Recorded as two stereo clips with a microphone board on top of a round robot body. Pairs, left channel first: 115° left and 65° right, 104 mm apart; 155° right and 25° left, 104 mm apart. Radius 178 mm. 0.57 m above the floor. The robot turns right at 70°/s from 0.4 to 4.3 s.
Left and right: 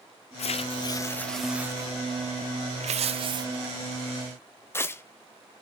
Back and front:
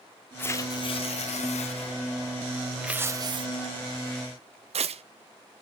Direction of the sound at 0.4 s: 130° left.